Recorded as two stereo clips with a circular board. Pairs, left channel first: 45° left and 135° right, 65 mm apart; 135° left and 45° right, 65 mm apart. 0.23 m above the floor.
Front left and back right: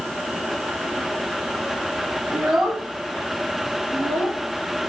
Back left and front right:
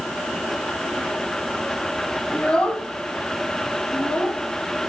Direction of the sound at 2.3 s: 165° right.